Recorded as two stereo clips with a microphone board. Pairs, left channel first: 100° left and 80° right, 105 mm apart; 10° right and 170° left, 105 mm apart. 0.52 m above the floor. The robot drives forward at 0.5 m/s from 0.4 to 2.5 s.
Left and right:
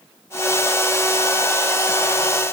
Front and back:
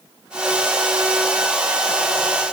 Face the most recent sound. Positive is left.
No sound to turn to.